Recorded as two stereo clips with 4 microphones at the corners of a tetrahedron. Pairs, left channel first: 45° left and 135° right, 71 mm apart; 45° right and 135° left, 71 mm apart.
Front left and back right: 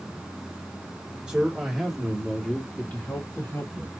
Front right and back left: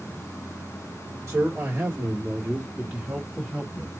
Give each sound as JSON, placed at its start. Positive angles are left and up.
{"t": 1.3, "sound": "a man speaking", "azimuth_deg": 160, "distance_m": 1.5}